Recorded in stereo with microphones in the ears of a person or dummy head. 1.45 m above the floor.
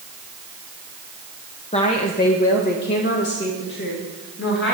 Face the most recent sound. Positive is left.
turn(degrees=65)  # may be behind; listen again after turning